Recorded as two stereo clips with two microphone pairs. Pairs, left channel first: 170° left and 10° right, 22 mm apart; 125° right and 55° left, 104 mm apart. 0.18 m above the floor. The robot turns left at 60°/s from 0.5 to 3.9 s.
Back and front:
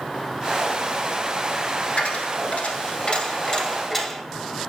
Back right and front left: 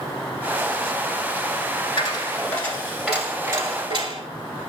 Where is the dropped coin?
160° right, 1.1 m; by 4.2 s 85° left, 1.1 m.